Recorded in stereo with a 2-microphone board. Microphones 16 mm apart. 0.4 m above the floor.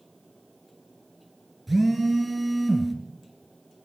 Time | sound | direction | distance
1.7 | a phone buzzing | 10° right (ahead or behind) | 3.5 m